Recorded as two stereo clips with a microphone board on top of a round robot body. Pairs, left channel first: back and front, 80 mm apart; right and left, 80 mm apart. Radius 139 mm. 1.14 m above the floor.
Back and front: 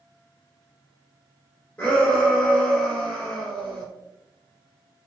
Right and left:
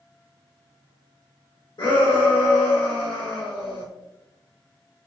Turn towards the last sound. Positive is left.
turn(degrees=-110)